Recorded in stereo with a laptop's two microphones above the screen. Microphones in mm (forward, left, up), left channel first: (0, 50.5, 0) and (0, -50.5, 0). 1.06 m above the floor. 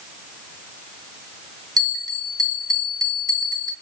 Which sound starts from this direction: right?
A bell, at 1.8 s.